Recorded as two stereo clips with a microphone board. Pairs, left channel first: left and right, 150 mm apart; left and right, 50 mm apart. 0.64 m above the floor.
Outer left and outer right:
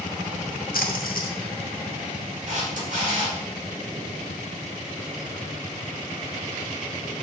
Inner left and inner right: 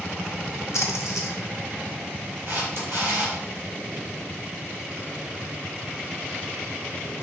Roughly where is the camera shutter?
Right.